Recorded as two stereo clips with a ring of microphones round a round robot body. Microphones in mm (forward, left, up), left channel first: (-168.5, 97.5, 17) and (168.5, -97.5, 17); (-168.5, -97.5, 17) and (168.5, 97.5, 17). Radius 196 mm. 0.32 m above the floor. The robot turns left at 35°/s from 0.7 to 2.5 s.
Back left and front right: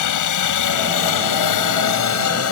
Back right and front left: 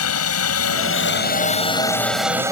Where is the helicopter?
170° left; by 2.5 s 110° left.